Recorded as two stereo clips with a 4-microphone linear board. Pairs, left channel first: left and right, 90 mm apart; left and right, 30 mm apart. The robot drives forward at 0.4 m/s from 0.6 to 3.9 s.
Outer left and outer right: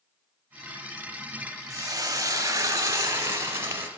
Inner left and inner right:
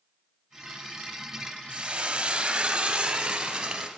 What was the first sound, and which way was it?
Frying, 40° right (ahead or behind).